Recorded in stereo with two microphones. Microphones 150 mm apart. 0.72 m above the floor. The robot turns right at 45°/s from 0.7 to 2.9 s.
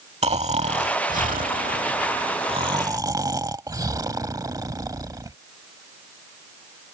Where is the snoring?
125° right; by 5.4 s 25° right.